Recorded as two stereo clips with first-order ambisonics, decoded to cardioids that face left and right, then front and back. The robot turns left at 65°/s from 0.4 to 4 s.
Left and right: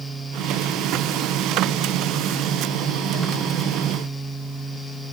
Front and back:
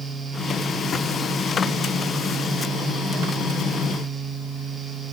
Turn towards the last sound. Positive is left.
No sound to turn to.